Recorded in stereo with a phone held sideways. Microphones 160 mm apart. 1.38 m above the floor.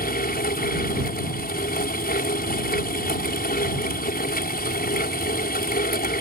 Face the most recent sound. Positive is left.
turn(degrees=75)  # may be behind; listen again after turning